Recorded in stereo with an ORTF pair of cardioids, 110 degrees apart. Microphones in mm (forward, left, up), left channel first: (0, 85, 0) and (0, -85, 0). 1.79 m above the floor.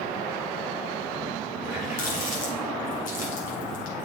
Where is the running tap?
55° left, 5.5 m.